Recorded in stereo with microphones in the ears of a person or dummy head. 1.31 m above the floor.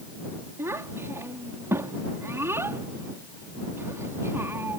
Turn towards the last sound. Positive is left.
turn(degrees=-10)  # may be behind; listen again after turning